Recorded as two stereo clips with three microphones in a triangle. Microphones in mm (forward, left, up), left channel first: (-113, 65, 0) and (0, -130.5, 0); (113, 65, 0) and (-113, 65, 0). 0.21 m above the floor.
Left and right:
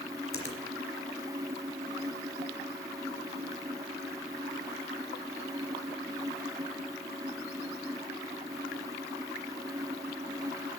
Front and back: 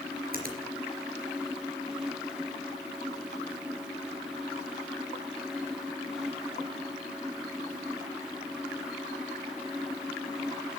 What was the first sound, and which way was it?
A finger snap, 130° left.